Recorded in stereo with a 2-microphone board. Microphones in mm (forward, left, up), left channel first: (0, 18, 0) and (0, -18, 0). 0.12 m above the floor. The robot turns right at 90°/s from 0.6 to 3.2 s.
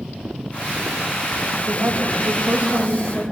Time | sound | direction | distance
1.7 | a woman speaking | 125° right | 8 m